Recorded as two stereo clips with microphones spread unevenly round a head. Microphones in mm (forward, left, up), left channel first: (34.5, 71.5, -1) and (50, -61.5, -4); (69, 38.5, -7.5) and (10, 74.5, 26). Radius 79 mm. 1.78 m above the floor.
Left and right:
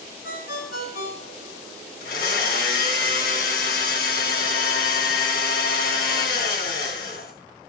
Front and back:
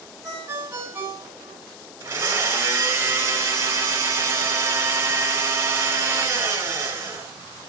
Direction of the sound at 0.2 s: 100° left.